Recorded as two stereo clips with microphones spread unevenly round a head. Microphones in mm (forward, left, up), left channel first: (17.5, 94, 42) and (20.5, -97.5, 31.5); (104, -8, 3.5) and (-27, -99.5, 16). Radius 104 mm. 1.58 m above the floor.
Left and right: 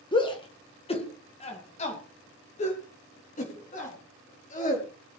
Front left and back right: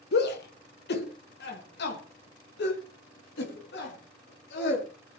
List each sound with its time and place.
0.1 s a shout: 25° left, 1.7 m; by 4.9 s 45° left, 4 m